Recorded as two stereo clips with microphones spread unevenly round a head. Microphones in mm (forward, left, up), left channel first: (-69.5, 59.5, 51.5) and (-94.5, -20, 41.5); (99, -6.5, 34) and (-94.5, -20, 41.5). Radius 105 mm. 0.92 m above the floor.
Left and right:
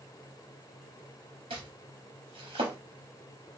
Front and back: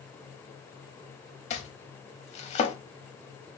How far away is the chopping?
About 0.6 m.